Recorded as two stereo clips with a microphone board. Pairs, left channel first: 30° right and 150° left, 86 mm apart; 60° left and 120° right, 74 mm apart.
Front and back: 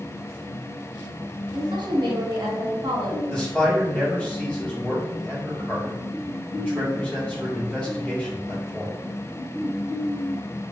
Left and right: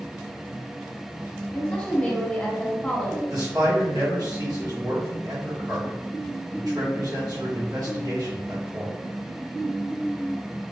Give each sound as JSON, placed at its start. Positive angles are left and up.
{"t": 1.5, "sound": "a woman speaking", "azimuth_deg": 135, "distance_m": 1.4}
{"t": 3.3, "sound": "a man speaking", "azimuth_deg": -105, "distance_m": 1.9}